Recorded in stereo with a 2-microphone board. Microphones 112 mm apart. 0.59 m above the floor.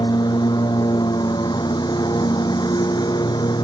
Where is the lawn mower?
45° left (ahead or behind).